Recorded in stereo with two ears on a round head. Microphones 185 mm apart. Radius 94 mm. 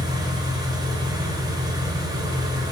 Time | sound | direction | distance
0.0 | an engine running | 20° right (ahead or behind) | 3.5 m